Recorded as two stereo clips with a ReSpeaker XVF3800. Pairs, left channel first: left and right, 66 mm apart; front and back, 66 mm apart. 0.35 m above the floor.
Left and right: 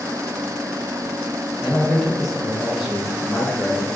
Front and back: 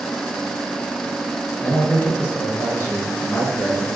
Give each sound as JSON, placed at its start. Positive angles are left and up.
{"t": 1.6, "sound": "a man speaking", "azimuth_deg": 0, "distance_m": 1.0}